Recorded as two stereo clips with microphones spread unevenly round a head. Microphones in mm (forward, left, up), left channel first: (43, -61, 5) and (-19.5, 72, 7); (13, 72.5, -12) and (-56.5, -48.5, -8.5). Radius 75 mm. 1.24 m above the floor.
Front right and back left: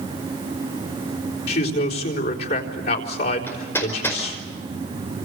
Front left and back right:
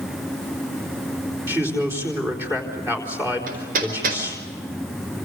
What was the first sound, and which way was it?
A man speaking, 45° right.